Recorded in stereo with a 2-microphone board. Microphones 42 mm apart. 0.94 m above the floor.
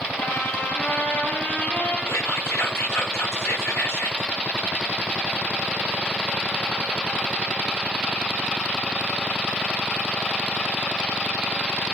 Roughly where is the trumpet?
Left.